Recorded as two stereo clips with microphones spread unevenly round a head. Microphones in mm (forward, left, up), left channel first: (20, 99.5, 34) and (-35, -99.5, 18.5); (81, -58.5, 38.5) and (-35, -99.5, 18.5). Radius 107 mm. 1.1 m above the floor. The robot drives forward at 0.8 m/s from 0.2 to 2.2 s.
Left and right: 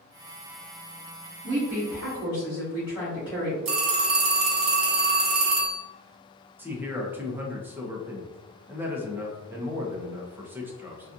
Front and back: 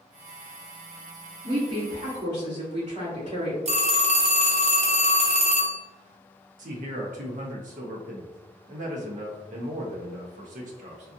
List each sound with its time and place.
1.4 s a woman speaking: 165° left, 1.7 m; by 3.5 s 170° left, 2.5 m
3.6 s a phone ringing: 130° right, 1.2 m
6.6 s a man speaking: 175° left, 0.7 m